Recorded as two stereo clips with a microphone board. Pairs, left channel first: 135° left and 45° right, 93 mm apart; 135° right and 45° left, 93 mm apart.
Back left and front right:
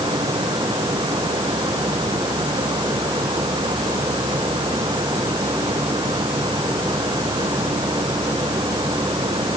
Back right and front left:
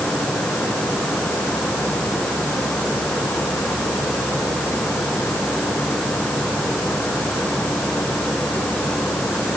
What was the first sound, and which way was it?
Only background noise.